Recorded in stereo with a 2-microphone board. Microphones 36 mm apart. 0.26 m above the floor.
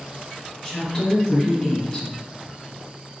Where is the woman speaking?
30° left (ahead or behind), 1.6 m.